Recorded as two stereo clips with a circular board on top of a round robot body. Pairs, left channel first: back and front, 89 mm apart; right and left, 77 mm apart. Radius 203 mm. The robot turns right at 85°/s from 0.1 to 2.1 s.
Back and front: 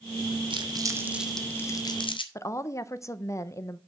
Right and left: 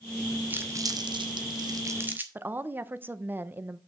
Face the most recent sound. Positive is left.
turn(degrees=140)